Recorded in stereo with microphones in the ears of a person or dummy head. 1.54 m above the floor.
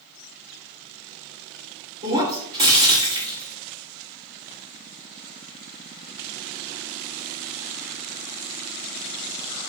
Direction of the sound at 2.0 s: 25° right (ahead or behind).